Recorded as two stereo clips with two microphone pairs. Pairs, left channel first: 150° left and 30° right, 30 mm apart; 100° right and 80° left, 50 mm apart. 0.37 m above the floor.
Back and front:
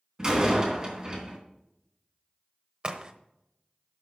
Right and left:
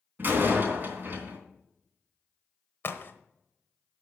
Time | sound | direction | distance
0.2 | a door slam | 35° left | 3 m
2.8 | a crack | 75° right | 1.1 m